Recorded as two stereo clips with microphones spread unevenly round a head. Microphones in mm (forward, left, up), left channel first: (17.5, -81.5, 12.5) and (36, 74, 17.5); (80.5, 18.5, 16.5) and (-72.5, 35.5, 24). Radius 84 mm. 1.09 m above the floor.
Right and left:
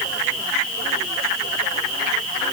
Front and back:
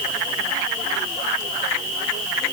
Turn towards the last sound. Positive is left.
No sound to turn to.